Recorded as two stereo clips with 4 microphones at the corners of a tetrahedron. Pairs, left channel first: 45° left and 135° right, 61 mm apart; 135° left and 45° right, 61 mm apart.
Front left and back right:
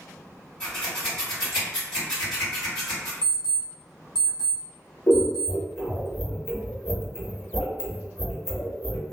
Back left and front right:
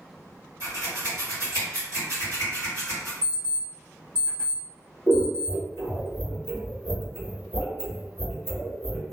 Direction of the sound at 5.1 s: 30° right.